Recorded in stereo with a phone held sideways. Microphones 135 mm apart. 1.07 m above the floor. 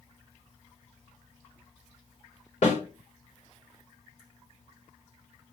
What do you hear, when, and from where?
2.6 s a snare drum: 65° left (ahead or behind), 3 m